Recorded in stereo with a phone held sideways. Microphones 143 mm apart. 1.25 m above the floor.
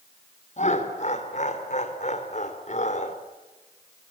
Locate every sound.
0.6 s laughter: 50° left (ahead or behind), 3.5 m